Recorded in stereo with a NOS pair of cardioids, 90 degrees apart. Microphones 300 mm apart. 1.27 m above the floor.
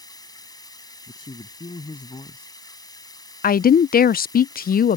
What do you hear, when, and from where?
0.0 s running water: 15° left
1.1 s a man speaking: 20° left
3.4 s a woman speaking: 30° left